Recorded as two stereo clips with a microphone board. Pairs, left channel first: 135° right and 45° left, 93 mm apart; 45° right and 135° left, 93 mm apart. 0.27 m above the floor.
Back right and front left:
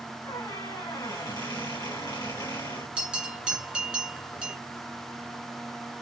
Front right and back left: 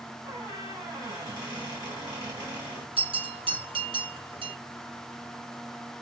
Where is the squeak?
Straight behind, 3 m.